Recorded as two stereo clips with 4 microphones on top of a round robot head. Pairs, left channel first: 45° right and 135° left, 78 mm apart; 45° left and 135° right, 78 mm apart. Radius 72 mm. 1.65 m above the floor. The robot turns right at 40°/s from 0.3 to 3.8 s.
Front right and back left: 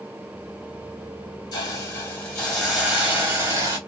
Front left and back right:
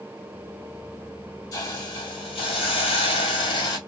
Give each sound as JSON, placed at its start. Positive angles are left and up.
{"t": 1.5, "sound": "a hiss", "azimuth_deg": 0, "distance_m": 1.2}